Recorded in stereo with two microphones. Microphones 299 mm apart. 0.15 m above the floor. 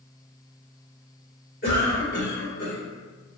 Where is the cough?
35° left (ahead or behind), 2.0 m.